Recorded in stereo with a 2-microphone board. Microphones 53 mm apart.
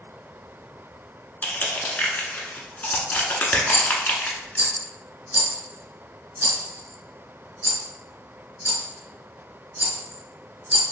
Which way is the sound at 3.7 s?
35° right (ahead or behind).